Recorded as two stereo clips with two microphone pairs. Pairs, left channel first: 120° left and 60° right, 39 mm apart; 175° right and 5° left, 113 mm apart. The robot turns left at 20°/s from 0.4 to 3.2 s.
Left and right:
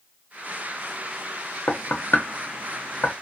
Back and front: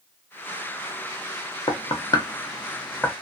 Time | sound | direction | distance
1.7 | knocking | 140° left | 0.6 m